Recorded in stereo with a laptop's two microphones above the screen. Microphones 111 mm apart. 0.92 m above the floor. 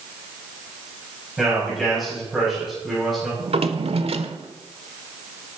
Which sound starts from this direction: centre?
A man speaking, at 1.4 s.